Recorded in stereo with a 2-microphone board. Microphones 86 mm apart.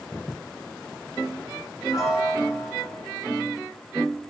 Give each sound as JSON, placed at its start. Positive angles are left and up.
{"t": 1.9, "sound": "a piano", "side_deg": 40, "distance_m": 5.5}